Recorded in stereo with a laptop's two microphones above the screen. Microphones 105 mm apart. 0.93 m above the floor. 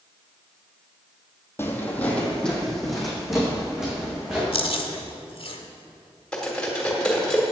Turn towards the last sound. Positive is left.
turn(degrees=10)  # may be behind; listen again after turning